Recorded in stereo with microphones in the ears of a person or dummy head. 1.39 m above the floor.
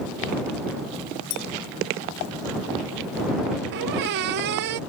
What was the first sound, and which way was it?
A clink, 75° left (ahead or behind).